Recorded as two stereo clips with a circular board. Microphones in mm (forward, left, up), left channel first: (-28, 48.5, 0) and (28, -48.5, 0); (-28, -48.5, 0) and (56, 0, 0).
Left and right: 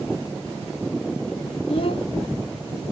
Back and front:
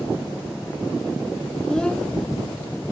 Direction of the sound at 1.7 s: 130° left.